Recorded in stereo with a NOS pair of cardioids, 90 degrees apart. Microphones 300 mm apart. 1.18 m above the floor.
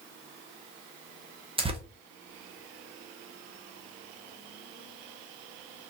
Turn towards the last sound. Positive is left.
turn(degrees=-20)